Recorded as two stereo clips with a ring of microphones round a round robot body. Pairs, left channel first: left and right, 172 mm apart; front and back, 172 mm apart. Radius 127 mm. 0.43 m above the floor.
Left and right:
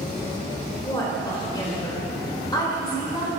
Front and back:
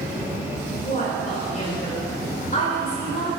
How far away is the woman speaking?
About 2 m.